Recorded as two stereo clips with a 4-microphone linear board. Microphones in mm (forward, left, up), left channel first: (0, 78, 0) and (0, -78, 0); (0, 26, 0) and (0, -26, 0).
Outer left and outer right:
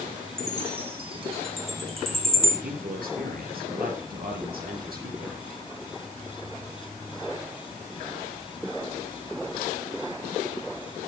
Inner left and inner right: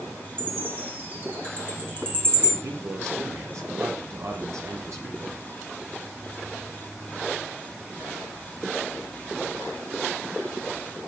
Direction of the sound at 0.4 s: 35° right (ahead or behind).